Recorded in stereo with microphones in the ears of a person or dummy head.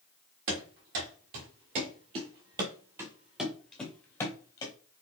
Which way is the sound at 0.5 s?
60° right (ahead or behind).